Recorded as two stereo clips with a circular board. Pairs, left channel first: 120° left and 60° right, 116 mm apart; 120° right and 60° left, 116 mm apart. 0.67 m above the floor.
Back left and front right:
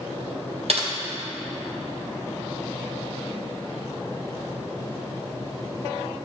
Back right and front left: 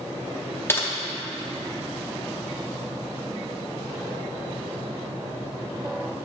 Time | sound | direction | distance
0.7 | typing on a keyboard | 55° right | 0.7 m